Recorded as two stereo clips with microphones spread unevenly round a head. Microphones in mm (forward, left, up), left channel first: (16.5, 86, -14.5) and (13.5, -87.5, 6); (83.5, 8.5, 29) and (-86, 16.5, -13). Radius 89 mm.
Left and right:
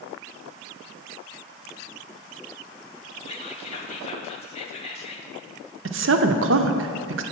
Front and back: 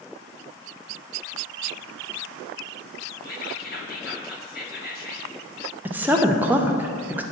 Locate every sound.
3.2 s whispering: 35° left, 1.1 m
5.8 s a woman speaking: 110° right, 0.6 m